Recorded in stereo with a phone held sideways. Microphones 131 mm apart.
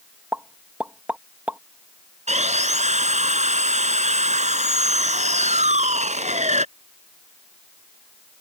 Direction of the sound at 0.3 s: 10° right (ahead or behind).